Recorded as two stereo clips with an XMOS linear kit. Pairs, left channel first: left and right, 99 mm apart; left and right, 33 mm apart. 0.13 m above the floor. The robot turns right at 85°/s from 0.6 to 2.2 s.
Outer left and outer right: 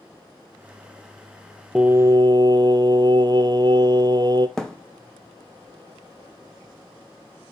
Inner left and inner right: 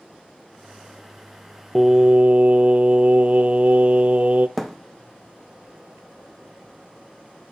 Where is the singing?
170° right, 0.6 m; by 4.5 s 135° right, 0.6 m.